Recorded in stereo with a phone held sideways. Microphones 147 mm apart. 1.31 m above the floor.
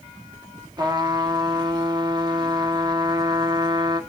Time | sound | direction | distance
0.8 | a trumpet | 30° right (ahead or behind) | 1.2 m